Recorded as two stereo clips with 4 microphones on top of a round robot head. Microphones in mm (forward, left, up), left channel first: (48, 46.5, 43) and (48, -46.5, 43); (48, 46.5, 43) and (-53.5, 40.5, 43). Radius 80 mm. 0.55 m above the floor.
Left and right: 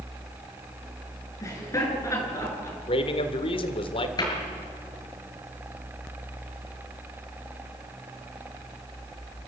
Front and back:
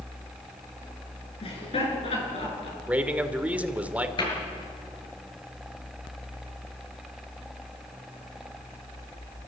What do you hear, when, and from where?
1.4 s laughter: 35° left, 7.5 m; by 2.8 s 30° left, 8.5 m
2.9 s a man speaking: 110° left, 2 m
4.2 s a cupboard door: 45° left, 6.5 m